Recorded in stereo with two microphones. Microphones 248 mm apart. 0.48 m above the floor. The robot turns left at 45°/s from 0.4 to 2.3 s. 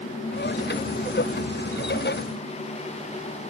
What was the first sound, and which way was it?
Only background noise.